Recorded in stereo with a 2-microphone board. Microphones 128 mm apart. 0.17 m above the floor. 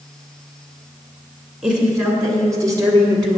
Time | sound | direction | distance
1.6 | a woman speaking | 15° right (ahead or behind) | 1.3 m